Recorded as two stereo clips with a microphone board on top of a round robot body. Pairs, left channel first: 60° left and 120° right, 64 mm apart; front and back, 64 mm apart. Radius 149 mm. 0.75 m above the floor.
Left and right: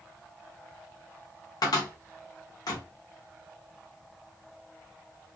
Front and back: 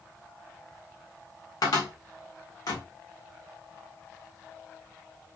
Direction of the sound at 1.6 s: 35° left.